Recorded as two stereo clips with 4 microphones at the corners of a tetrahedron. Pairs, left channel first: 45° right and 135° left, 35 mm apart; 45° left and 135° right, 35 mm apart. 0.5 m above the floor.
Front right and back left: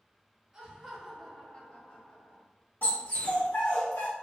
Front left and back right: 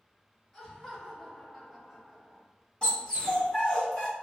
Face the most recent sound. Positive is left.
turn(degrees=-25)